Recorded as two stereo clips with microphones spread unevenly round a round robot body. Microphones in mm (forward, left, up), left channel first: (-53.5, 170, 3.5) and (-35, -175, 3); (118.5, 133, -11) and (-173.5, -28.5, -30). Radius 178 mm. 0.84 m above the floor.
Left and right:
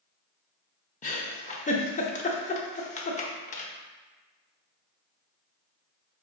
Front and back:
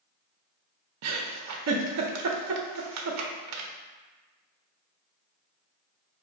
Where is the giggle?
165° left, 0.6 m.